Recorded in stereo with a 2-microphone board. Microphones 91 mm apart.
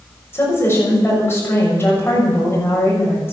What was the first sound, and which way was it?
A woman speaking, 25° left (ahead or behind).